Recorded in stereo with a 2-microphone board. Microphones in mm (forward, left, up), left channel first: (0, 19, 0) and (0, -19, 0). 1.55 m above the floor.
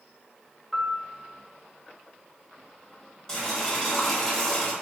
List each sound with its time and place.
0.7 s a piano: centre (ahead or behind), 0.5 m
3.3 s boiling: 10° left (ahead or behind), 1.2 m